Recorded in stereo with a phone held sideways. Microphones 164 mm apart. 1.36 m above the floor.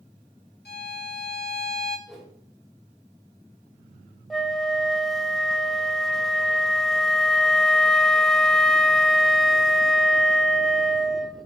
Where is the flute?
Centre (ahead or behind), 0.8 m.